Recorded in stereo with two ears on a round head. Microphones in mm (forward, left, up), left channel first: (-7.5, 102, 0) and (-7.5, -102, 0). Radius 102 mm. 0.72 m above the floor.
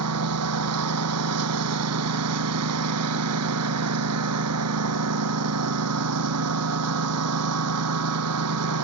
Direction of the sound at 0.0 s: 75° right (ahead or behind).